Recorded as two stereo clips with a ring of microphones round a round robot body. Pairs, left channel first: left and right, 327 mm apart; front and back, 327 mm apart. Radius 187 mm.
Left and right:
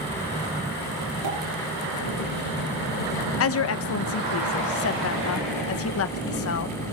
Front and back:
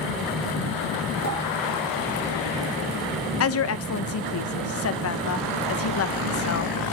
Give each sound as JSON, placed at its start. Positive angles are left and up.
{"t": 1.2, "sound": "a pop", "azimuth_deg": -50, "distance_m": 8.0}
{"t": 3.4, "sound": "a woman speaking", "azimuth_deg": 45, "distance_m": 0.9}